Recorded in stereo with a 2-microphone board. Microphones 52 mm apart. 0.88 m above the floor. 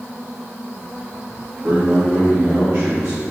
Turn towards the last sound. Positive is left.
turn(degrees=-35)  # may be behind; listen again after turning